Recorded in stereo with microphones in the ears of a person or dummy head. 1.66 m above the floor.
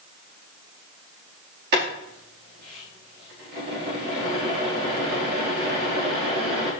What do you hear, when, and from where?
1.7 s boiling: 55° right (ahead or behind), 4.5 m